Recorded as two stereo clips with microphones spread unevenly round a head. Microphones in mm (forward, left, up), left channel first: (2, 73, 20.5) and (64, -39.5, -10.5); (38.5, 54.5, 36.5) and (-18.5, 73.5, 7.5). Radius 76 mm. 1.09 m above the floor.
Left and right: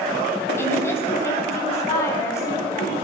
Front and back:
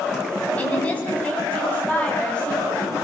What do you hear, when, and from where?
0.6 s a woman speaking: 50° left, 8.5 m